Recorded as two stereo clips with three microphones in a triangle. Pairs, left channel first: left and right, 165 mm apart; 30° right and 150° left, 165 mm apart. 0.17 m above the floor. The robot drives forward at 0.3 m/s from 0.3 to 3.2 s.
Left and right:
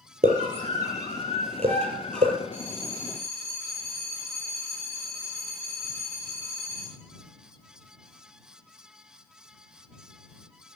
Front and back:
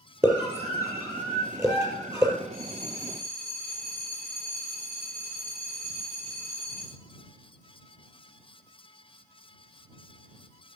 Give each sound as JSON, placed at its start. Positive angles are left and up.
{"t": 0.2, "sound": "a scream", "azimuth_deg": -135, "distance_m": 5.0}
{"t": 2.5, "sound": "a bell", "azimuth_deg": 170, "distance_m": 4.5}